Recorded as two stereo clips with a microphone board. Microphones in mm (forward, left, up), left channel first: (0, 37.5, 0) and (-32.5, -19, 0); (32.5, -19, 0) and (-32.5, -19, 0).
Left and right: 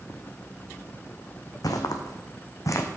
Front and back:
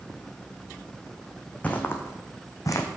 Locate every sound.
1.6 s footsteps: 65° left, 1.2 m; by 2.9 s 25° left, 1.2 m